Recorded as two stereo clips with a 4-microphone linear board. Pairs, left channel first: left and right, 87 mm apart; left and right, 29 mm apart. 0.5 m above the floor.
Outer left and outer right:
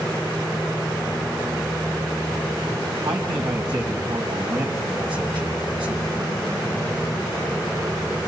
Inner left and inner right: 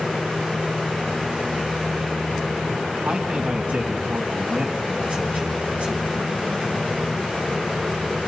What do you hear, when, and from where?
3.0 s a man speaking: 70° right (ahead or behind), 3 m